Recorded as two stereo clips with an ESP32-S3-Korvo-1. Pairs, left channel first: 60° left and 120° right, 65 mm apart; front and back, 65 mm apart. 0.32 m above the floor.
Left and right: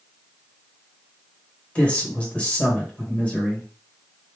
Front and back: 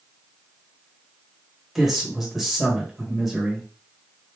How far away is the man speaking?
About 1.5 m.